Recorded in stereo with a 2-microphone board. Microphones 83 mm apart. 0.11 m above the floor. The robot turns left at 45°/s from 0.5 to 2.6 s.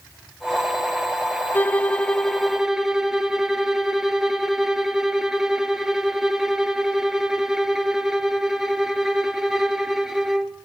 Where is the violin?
40° left, 0.9 m; by 10.6 s 5° right, 0.9 m.